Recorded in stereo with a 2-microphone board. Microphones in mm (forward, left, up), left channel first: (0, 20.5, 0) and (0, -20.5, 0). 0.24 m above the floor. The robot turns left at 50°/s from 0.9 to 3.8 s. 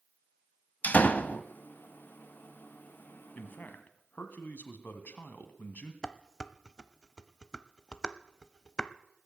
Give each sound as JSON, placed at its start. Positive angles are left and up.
{"t": 0.8, "sound": "a door slam", "side_deg": 40, "distance_m": 0.8}
{"t": 3.4, "sound": "a man speaking", "side_deg": 45, "distance_m": 1.9}
{"t": 6.0, "sound": "dishes clattering", "side_deg": 20, "distance_m": 0.7}